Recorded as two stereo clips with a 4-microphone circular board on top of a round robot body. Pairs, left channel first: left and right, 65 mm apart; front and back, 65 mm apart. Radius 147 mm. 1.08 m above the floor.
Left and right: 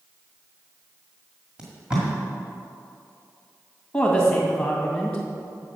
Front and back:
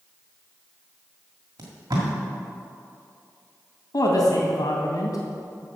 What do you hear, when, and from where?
1.6 s tape being pulled: 165° right, 1.7 m
3.9 s a woman speaking: 10° left, 2.5 m